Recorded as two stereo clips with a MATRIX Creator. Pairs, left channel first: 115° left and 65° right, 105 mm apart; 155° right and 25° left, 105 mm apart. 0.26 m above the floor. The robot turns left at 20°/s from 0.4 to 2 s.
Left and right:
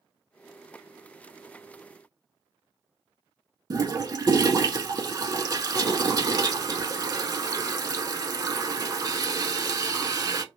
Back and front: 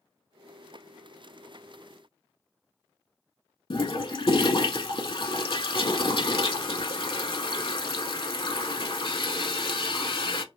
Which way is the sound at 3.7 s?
120° right.